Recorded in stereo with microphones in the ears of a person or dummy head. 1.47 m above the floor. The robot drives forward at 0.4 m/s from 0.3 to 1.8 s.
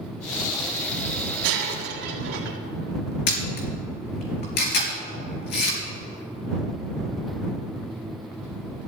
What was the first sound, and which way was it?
Breaking glass, 65° right (ahead or behind).